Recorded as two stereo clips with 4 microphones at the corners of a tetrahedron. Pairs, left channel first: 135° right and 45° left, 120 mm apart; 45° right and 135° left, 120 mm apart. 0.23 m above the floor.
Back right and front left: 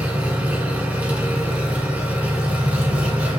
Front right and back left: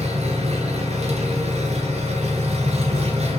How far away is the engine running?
About 1.7 m.